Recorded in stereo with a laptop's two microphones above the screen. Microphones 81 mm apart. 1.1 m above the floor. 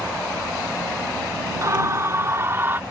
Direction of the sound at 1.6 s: 40° right (ahead or behind).